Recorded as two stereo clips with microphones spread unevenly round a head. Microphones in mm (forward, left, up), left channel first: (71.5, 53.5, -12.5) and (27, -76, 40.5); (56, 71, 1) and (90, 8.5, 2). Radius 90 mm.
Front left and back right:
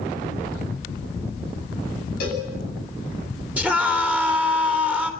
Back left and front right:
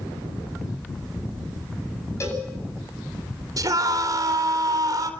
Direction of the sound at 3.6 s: 30° right.